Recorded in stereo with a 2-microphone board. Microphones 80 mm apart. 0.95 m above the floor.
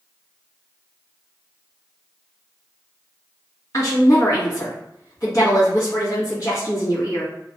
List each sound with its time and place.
3.7 s a woman speaking: 40° left (ahead or behind), 1.8 m